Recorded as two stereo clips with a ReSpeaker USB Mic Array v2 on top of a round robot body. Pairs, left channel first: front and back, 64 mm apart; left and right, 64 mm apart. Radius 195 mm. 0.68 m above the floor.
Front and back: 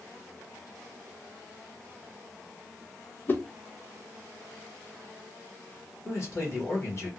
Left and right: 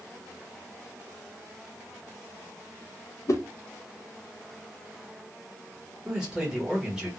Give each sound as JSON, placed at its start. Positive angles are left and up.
{"t": 3.3, "sound": "a whoosh", "azimuth_deg": 55, "distance_m": 0.5}
{"t": 6.0, "sound": "a man speaking", "azimuth_deg": -10, "distance_m": 1.5}